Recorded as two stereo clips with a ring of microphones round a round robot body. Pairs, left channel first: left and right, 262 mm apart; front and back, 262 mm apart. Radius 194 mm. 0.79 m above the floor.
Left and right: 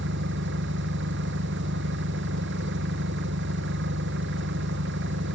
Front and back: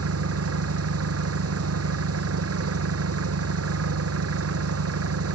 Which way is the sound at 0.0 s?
150° right.